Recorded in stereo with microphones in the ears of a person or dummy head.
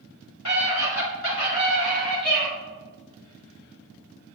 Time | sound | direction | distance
0.5 | a scream | 85° left | 3.5 m